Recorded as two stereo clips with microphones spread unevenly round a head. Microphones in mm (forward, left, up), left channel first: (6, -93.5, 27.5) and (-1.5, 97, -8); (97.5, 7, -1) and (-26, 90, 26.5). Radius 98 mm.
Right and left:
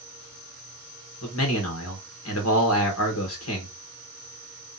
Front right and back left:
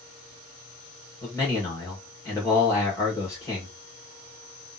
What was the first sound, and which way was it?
A man speaking, 105° right.